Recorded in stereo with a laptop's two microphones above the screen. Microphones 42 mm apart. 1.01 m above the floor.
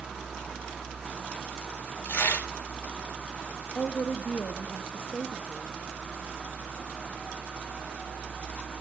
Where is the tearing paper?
75° left (ahead or behind), 2.5 m.